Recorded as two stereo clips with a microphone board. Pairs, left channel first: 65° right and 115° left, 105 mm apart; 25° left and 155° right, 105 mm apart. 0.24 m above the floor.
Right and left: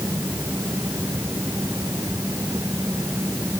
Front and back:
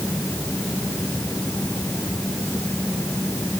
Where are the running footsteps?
I don't hear running footsteps.